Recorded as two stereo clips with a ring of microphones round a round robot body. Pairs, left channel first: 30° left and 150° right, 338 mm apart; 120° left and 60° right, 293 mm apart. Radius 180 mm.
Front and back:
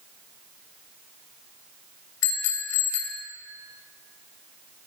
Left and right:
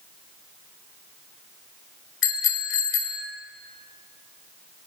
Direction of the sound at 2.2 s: 75° left.